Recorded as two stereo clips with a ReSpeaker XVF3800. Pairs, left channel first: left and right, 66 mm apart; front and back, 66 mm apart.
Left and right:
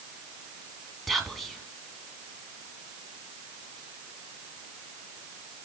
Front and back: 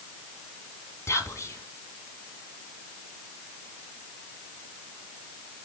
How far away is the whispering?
About 2.0 m.